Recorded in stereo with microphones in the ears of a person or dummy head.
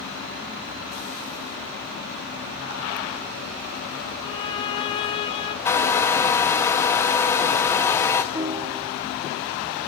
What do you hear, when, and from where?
4.2 s a violin: 30° left (ahead or behind), 1.1 m
5.7 s a hair dryer: 15° left (ahead or behind), 1.1 m
8.3 s a piano: 15° right (ahead or behind), 0.9 m